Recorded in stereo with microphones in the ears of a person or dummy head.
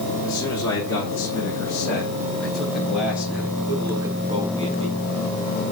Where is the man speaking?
20° left (ahead or behind), 3 m; by 4.9 s 40° right (ahead or behind), 1.5 m.